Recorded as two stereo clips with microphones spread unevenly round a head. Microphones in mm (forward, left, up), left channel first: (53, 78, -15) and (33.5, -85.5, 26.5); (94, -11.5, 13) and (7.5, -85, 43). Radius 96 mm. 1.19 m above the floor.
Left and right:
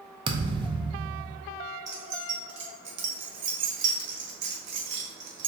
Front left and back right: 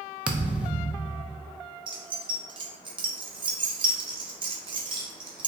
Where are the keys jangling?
95° right, 1.0 m.